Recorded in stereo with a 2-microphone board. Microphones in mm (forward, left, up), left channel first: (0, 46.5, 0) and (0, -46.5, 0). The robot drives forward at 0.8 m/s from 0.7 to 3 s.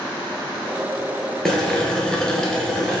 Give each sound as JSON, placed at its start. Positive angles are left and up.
{"t": 1.4, "sound": "boiling", "side_deg": 5, "distance_m": 0.8}